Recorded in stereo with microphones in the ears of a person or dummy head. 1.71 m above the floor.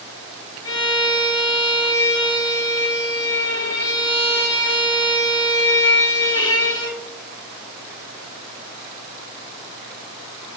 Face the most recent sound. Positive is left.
turn(degrees=20)  # may be behind; listen again after turning